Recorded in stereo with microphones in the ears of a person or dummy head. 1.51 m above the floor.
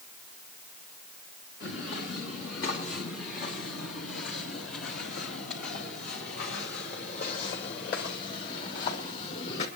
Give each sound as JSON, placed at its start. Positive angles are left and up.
{"t": 1.6, "sound": "footsteps", "side_deg": 70, "distance_m": 6.5}